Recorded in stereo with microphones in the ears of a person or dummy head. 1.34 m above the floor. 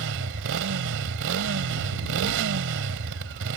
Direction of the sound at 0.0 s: 70° right (ahead or behind).